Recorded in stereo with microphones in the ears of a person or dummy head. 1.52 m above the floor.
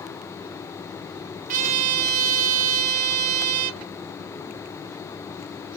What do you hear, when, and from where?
1.5 s a trumpet: 45° right (ahead or behind), 0.7 m